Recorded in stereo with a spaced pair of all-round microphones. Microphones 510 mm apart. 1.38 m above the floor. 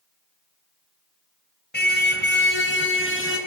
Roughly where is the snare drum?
No snare drum in this recording.